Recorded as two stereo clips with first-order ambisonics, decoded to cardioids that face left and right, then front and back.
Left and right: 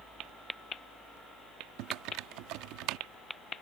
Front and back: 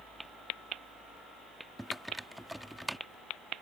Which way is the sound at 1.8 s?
90° right.